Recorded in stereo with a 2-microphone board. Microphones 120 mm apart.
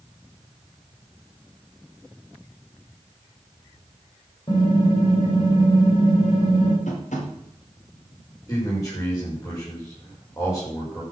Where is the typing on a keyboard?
40° left (ahead or behind), 6 m.